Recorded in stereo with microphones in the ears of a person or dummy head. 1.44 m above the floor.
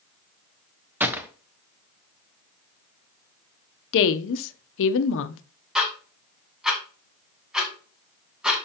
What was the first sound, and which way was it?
A gunshot, 10° right (ahead or behind).